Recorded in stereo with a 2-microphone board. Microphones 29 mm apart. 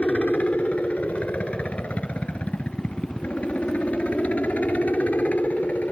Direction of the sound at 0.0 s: 55° left (ahead or behind).